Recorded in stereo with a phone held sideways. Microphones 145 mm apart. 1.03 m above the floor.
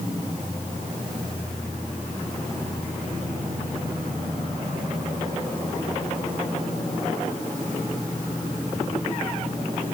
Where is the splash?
No splash in this recording.